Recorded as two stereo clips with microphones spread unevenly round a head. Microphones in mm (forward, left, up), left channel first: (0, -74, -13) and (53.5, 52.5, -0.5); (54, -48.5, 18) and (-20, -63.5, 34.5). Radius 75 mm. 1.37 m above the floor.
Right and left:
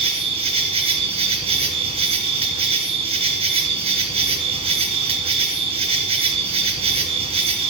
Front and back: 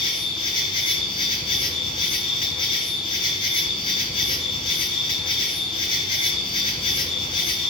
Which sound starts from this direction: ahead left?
An insect, at 0.0 s.